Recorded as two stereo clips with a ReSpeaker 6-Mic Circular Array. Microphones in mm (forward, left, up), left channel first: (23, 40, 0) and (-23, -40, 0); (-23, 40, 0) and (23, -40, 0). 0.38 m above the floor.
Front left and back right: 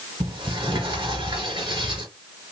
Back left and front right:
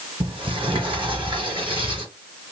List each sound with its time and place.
0.2 s a sliding door: 90° right, 3.5 m